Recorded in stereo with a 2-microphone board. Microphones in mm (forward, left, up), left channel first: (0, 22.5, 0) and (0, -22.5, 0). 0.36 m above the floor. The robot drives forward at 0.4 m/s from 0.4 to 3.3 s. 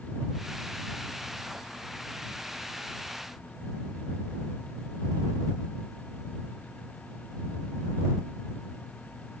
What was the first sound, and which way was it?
Only background noise.